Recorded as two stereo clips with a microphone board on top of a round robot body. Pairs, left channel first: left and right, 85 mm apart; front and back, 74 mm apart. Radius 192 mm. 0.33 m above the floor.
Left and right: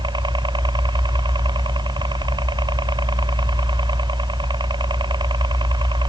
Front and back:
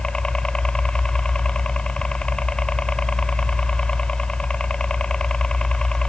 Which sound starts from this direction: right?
A helicopter, at 0.0 s.